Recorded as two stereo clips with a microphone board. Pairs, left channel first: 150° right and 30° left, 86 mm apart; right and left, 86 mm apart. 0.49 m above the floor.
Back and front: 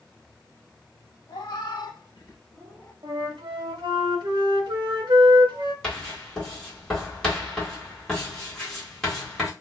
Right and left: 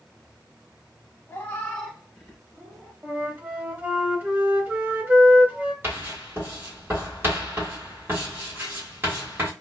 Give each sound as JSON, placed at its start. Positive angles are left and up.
{"t": 1.3, "sound": "a cat meowing", "azimuth_deg": -150, "distance_m": 0.7}
{"t": 3.0, "sound": "a flute", "azimuth_deg": 20, "distance_m": 0.6}
{"t": 5.8, "sound": "writing", "azimuth_deg": 135, "distance_m": 1.3}